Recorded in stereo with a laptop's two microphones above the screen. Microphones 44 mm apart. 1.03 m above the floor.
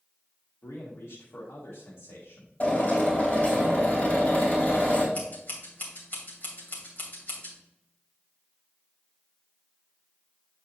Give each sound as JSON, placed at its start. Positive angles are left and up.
{"t": 0.6, "sound": "a man speaking", "side_deg": 80, "distance_m": 1.3}
{"t": 2.6, "sound": "a drill", "side_deg": 35, "distance_m": 3.5}
{"t": 5.2, "sound": "scissors", "side_deg": 40, "distance_m": 2.5}